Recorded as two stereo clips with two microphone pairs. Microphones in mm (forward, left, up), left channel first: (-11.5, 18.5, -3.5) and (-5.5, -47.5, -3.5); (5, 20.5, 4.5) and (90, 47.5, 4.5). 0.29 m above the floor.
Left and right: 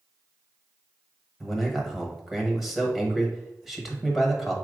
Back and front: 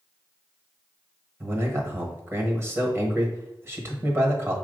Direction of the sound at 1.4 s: Straight ahead.